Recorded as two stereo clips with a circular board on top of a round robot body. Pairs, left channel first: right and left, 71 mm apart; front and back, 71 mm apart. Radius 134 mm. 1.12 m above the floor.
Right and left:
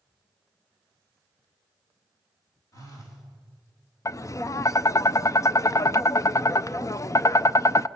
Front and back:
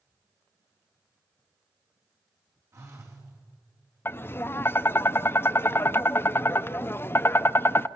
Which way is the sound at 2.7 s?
130° right.